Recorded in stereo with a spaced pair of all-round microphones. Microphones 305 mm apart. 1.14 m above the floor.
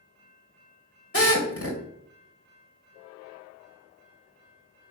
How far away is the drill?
About 2.5 m.